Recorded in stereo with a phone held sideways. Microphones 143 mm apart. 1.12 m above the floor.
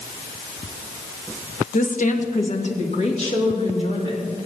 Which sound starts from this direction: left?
A woman speaking, at 1.7 s.